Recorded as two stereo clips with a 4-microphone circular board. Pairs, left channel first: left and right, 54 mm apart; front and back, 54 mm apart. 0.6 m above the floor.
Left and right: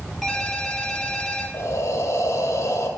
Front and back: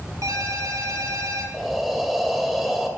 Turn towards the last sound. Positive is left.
turn(degrees=95)